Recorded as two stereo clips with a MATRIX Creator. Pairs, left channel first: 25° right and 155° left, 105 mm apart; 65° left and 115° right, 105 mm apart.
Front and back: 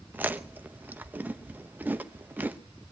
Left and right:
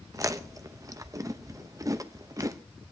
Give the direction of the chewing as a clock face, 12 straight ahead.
5 o'clock.